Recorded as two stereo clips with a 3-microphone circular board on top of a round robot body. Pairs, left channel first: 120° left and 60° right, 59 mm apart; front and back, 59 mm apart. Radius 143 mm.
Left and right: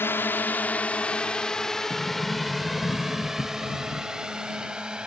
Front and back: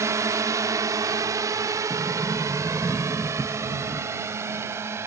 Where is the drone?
160° left; by 5.1 s 135° right.